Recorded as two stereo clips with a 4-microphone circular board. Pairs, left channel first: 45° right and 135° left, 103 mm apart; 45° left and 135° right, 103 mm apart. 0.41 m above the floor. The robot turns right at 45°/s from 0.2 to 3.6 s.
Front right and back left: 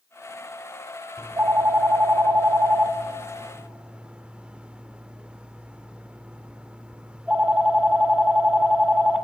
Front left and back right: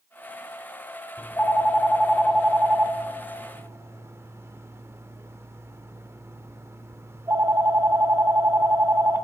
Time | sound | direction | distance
1.2 | a phone ringing | 95° left | 0.6 m